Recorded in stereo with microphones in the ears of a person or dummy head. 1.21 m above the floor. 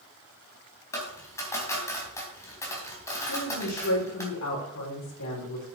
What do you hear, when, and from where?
0.9 s a dropped coin: 15° left (ahead or behind), 3.5 m
3.3 s a woman speaking: 70° left (ahead or behind), 5 m